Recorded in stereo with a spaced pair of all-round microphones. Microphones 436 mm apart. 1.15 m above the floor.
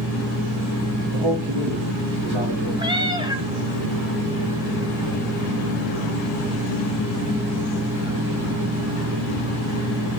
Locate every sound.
1.1 s a man speaking: 70° right (ahead or behind), 2.5 m
2.8 s a cat meowing: 10° right (ahead or behind), 0.9 m